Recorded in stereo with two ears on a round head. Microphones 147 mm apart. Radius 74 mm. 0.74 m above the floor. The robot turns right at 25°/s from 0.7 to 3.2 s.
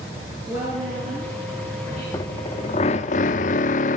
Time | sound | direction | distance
0.5 | a woman speaking | 165° right | 8.5 m
2.1 | a drill | 25° left (ahead or behind) | 0.7 m